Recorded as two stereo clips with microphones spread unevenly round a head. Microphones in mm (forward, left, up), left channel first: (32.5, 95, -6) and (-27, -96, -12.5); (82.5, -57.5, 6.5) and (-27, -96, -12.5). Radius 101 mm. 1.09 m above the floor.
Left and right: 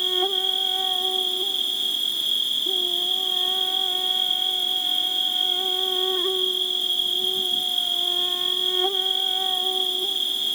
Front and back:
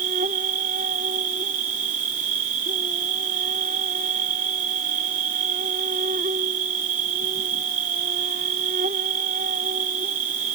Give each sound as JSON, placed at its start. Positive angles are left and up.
{"t": 0.0, "sound": "an insect", "azimuth_deg": 160}